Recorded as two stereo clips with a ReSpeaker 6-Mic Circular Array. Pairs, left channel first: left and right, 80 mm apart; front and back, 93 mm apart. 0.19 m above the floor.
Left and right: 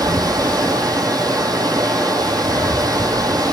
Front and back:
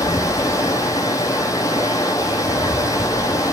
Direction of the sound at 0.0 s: 55° right.